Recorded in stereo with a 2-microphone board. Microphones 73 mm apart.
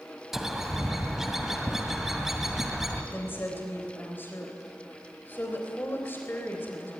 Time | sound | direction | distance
0.3 | a bird | 5° right (ahead or behind) | 2 m
3.1 | a woman speaking | 30° left (ahead or behind) | 3.5 m